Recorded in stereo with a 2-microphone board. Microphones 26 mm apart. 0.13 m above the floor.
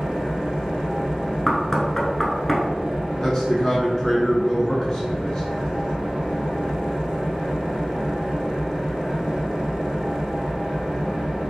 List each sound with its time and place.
0.0 s an engine running: 45° right (ahead or behind), 1.7 m
1.5 s knocking: 10° left (ahead or behind), 1.0 m
3.2 s a man speaking: 15° left (ahead or behind), 1.2 m